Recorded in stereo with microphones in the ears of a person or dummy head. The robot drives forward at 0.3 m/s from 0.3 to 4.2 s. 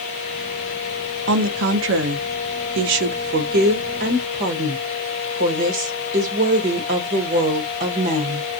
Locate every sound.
1.3 s a woman speaking: 65° right (ahead or behind), 0.7 m; by 8.5 s 45° right (ahead or behind), 1.0 m